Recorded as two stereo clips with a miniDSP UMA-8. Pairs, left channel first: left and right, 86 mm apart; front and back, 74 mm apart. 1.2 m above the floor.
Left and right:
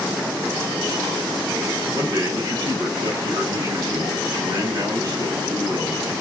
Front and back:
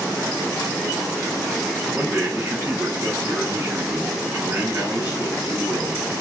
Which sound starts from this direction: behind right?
A man speaking, at 1.9 s.